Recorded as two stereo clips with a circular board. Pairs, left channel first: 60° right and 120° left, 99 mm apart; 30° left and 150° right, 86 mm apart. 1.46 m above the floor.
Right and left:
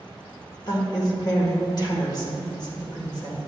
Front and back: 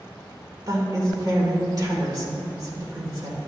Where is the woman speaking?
105° right, 1.7 m.